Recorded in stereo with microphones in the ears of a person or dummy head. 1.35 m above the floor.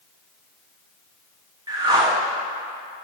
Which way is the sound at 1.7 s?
20° right (ahead or behind).